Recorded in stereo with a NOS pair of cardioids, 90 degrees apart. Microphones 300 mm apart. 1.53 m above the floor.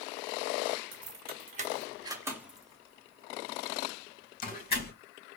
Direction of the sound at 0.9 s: 40° right.